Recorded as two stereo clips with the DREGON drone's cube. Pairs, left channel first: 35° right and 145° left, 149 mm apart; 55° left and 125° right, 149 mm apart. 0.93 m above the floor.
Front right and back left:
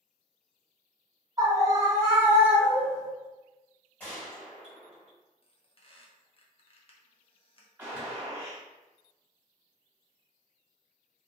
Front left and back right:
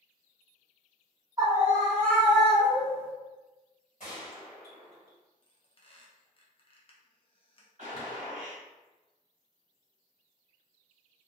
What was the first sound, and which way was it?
A scream, 170° right.